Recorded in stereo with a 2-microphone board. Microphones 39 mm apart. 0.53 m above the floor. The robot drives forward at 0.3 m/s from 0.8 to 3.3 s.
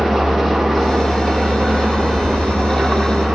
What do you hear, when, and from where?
0.0 s an engine running: 5° left (ahead or behind), 0.7 m; by 3.3 s centre (ahead or behind), 1.4 m